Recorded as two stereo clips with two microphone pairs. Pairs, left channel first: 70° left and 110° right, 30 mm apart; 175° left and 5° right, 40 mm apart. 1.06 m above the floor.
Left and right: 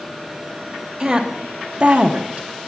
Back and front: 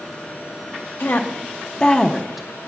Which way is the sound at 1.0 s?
175° right.